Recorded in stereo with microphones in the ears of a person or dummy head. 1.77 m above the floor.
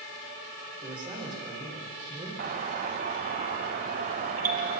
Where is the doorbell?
35° right (ahead or behind), 1.2 m.